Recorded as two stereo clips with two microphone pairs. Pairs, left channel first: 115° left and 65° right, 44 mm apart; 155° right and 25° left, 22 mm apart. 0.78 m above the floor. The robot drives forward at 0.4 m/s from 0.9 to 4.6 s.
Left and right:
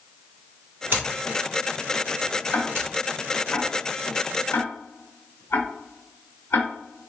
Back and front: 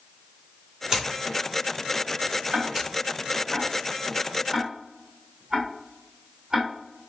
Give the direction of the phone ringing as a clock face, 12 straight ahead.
I don't hear a phone ringing.